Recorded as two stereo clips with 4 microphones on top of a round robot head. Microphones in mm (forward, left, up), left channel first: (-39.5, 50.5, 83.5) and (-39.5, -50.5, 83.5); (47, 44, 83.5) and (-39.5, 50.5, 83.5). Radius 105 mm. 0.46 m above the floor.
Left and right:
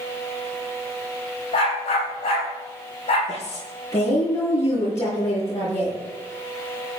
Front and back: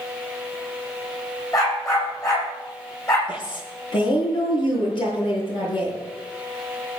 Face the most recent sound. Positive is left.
turn(degrees=25)